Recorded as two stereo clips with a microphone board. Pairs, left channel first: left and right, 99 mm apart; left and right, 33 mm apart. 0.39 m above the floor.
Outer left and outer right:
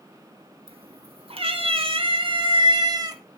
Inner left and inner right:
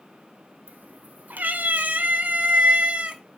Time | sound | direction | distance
0.7 | a cat meowing | 80° right | 1.8 m